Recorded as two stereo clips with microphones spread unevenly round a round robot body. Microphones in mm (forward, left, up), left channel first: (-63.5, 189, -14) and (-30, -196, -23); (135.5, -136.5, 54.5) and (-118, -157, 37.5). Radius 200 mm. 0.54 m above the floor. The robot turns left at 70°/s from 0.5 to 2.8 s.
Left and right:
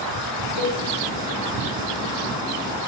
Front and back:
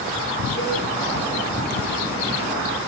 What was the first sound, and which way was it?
A cowbell, 65° left.